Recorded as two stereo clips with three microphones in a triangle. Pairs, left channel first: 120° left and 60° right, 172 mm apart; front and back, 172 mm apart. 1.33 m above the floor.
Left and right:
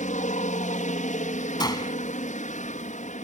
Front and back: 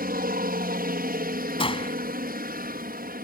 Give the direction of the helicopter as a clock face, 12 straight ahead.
7 o'clock.